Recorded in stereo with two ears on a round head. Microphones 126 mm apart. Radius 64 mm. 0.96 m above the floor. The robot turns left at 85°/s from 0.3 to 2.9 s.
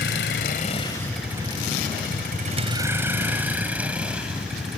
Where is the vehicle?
85° left; by 4.8 s 5° right (ahead or behind).